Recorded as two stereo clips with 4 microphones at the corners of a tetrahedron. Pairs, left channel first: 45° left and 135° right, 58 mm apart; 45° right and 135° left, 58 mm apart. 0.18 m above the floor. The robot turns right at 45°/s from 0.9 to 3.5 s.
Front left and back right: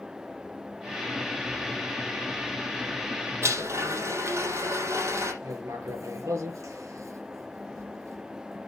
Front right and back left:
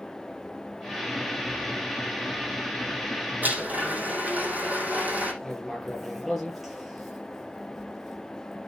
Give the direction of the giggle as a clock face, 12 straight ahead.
I don't hear a giggle.